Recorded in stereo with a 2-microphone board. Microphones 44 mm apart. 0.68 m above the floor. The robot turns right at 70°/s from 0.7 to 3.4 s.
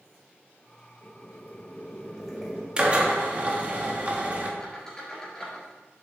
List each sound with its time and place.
1.0 s boiling: 90° left, 2.0 m; by 2.7 s 155° right, 2.0 m
2.8 s a drill: 135° right, 1.1 m; by 4.5 s 90° right, 1.1 m
4.6 s a squeak: 15° left (ahead or behind), 3 m